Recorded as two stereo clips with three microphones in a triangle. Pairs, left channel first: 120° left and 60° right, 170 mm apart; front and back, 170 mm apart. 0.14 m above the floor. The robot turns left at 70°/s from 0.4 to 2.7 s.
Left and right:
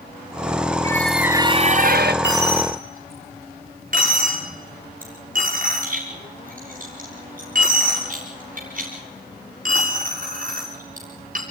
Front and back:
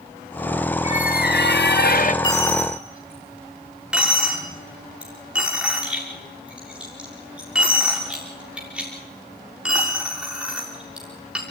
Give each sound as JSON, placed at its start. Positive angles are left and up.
{"t": 0.8, "sound": "a squeak", "azimuth_deg": 50, "distance_m": 1.0}
{"t": 2.2, "sound": "a dropped coin", "azimuth_deg": -65, "distance_m": 6.5}